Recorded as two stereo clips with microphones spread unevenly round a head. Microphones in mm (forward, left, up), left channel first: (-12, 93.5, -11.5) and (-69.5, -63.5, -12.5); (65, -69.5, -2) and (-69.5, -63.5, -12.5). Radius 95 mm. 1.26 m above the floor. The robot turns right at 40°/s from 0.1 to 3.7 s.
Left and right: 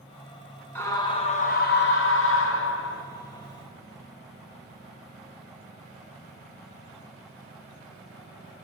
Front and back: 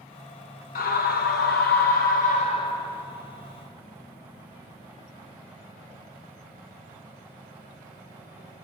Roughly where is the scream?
Ahead.